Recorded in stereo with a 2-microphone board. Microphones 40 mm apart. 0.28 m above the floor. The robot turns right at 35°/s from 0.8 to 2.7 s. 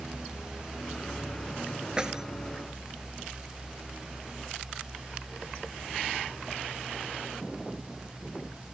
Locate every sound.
2.0 s keys jangling: 20° right (ahead or behind); by 2.2 s 10° right (ahead or behind)